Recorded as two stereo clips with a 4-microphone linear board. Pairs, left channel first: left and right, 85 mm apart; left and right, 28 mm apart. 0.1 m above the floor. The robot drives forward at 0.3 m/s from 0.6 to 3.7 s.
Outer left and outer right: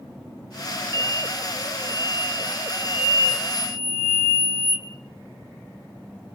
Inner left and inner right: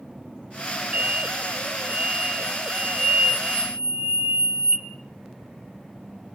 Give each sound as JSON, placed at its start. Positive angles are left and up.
{"t": 0.9, "sound": "an explosion", "side_deg": -55, "distance_m": 0.7}